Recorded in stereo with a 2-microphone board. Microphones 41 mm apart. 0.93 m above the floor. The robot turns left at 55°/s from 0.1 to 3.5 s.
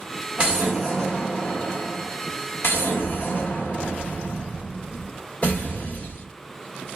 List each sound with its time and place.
0.4 s an explosion: 150° right, 1.0 m; by 6.2 s 40° left, 1.0 m